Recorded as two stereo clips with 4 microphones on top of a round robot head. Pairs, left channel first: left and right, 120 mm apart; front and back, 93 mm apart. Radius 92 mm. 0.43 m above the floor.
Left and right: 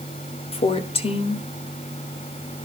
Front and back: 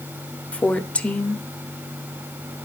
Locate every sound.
0.5 s a woman speaking: 75° left, 1.6 m